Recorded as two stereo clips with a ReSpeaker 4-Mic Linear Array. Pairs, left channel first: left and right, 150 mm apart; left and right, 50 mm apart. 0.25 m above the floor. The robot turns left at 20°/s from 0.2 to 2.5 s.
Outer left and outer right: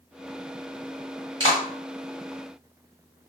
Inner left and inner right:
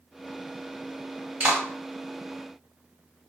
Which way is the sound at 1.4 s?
30° right (ahead or behind).